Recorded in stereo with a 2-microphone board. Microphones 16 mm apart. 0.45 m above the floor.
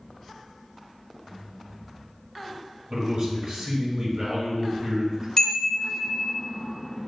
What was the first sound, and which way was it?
A man speaking, 45° right (ahead or behind).